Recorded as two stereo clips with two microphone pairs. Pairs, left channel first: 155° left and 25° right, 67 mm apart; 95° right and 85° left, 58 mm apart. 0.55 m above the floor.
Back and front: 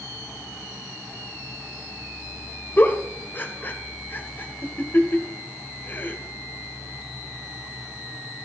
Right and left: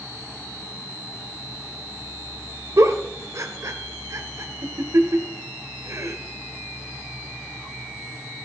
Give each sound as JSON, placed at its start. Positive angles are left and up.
{"t": 2.8, "sound": "a giggle", "azimuth_deg": 100, "distance_m": 1.8}